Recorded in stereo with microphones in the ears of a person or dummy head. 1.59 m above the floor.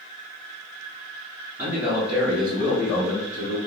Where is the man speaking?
20° right (ahead or behind), 1.4 m; by 3.6 s 35° left (ahead or behind), 1.1 m.